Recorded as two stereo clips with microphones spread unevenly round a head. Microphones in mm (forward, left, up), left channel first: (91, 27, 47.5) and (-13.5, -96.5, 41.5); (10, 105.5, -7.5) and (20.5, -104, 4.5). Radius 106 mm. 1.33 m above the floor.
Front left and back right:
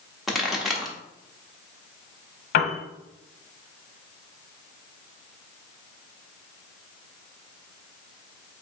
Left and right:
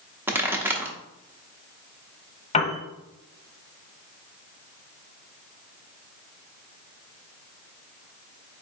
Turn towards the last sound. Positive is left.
turn(degrees=30)